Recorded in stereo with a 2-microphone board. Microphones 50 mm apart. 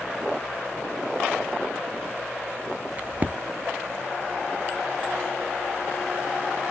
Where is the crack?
35° right (ahead or behind), 1.0 m.